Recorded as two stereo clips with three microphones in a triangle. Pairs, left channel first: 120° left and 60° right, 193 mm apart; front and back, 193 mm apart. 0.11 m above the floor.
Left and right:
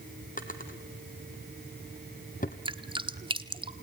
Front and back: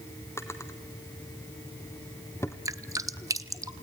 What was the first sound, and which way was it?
A drawer, 75° left.